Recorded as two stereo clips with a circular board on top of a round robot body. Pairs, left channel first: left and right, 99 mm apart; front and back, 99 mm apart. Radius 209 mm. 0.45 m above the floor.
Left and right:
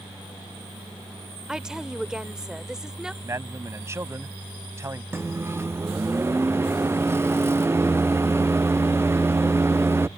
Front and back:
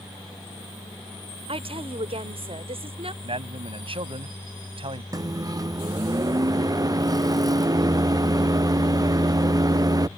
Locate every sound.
1.5 s a woman speaking: 175° right
3.2 s a man speaking: 150° right
5.1 s a microwave: 145° right